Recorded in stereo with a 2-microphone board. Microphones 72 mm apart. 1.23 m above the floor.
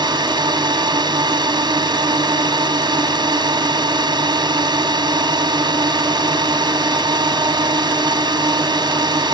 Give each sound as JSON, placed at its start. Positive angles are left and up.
{"t": 0.0, "sound": "a drone", "side_deg": -80}